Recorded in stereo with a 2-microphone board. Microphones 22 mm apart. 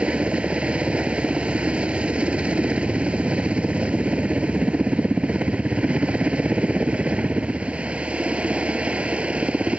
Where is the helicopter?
55° right (ahead or behind); by 9.8 s 60° right (ahead or behind).